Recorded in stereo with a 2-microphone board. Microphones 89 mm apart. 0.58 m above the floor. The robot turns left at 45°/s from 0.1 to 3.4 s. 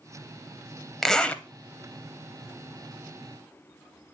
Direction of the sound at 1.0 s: 5° left (ahead or behind).